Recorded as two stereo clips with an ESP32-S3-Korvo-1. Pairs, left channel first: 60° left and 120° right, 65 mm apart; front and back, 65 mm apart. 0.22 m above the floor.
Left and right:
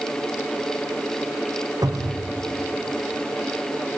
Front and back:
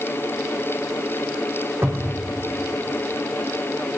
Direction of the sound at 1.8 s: 135° right.